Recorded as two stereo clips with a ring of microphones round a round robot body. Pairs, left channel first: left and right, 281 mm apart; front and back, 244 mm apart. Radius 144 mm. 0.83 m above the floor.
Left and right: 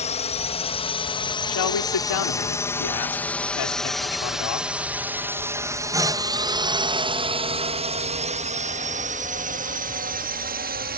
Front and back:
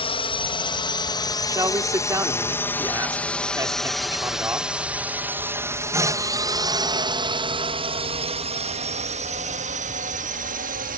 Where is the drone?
45° left; by 11.0 s 135° right.